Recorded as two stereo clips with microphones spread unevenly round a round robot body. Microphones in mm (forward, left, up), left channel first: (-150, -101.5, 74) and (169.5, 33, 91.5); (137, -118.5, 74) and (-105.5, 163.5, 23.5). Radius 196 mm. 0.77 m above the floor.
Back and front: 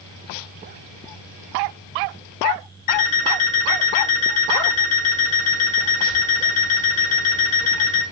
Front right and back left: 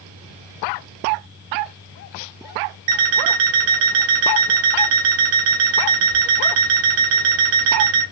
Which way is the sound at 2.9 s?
135° left.